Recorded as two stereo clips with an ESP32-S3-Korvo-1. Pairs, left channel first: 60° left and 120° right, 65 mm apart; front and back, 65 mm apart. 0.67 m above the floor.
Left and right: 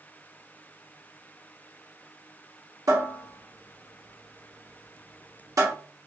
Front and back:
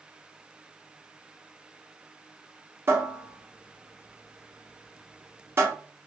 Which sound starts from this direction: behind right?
A cupboard door, at 2.9 s.